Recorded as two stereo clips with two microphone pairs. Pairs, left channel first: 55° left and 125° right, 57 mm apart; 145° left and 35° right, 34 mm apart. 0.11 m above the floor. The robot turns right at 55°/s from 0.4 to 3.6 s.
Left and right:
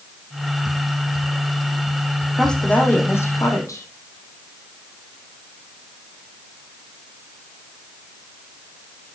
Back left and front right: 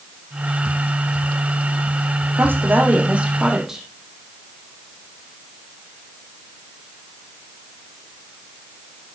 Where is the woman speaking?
25° right, 4.5 m; by 3.9 s 40° left, 4.5 m.